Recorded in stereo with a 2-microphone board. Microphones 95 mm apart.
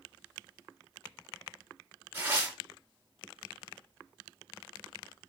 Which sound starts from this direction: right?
Tearing paper, at 2.1 s.